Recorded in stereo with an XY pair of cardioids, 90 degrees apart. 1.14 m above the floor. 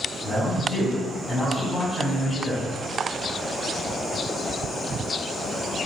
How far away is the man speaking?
About 1.7 m.